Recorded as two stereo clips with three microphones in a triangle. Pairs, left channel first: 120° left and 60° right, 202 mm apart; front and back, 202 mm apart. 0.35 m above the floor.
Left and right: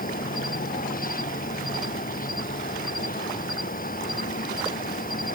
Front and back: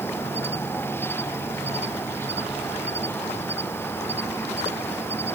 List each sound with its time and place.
0.0 s an insect: 80° left